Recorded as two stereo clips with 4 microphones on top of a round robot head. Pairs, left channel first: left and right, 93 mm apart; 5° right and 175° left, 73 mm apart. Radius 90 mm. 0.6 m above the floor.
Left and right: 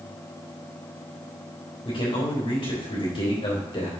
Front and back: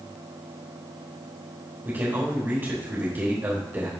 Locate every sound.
1.9 s a man speaking: 120° left, 3.5 m